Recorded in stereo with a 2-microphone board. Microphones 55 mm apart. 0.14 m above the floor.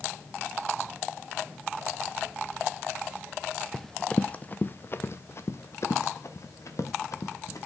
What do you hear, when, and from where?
3.7 s running footsteps: 5° left (ahead or behind), 0.6 m; by 7.7 s 70° left (ahead or behind), 2 m